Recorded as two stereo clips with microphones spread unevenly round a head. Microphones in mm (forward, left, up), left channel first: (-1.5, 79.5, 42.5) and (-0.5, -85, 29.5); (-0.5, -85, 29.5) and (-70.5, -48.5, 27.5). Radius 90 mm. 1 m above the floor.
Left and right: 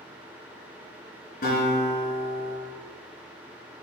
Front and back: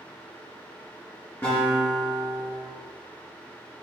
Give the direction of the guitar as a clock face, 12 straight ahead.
10 o'clock.